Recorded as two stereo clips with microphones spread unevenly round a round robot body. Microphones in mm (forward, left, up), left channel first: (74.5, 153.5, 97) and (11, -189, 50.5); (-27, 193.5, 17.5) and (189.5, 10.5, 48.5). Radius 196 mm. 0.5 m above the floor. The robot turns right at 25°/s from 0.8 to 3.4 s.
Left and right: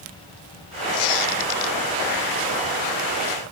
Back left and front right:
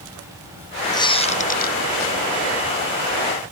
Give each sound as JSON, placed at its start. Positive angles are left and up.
{"t": 0.9, "sound": "a squeak", "azimuth_deg": 60, "distance_m": 1.3}